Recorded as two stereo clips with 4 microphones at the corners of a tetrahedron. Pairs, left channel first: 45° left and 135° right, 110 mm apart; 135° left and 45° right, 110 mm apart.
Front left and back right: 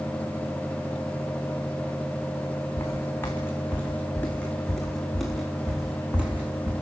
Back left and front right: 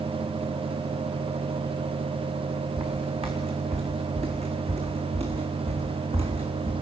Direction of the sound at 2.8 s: 20° right.